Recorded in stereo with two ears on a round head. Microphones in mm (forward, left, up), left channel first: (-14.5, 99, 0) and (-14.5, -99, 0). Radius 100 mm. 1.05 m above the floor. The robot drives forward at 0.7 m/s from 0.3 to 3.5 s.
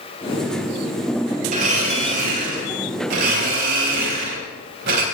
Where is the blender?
40° right (ahead or behind), 4.5 m; by 5.0 s 55° right (ahead or behind), 3.5 m.